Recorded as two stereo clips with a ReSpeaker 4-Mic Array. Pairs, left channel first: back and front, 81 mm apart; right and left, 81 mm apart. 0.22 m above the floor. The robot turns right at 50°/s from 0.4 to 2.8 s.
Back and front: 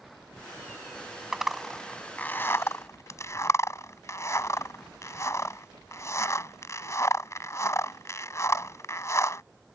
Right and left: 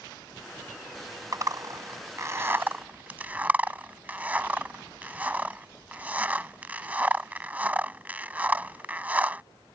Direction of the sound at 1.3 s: 80° left.